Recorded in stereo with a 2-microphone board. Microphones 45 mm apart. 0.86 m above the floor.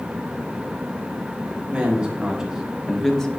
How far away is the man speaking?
About 2 m.